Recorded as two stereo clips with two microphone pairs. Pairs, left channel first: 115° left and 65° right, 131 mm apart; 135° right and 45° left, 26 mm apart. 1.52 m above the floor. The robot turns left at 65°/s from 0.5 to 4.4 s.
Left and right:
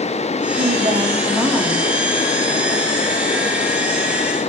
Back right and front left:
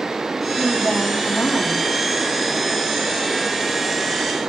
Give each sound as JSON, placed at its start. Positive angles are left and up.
{"t": 0.6, "sound": "a woman speaking", "azimuth_deg": -80, "distance_m": 3.0}